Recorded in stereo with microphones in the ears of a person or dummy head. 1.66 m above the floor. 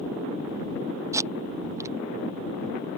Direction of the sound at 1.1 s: 15° right (ahead or behind).